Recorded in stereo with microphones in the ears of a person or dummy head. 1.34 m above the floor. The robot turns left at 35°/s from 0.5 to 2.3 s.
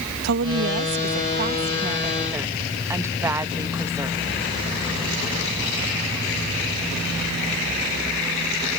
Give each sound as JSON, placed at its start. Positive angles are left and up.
{"t": 0.2, "sound": "a woman speaking", "azimuth_deg": -105}